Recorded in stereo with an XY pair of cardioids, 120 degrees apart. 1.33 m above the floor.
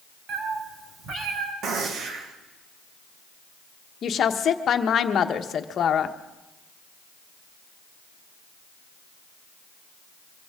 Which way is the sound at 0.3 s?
60° right.